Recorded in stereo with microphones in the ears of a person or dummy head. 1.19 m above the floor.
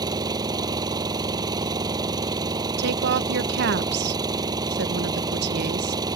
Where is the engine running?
25° right (ahead or behind).